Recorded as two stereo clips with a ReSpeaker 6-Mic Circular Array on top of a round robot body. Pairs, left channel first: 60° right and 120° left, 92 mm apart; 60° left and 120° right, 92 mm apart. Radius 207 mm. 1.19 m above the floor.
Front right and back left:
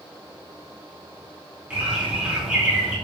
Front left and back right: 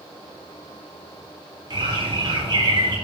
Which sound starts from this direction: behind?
A bird, at 1.7 s.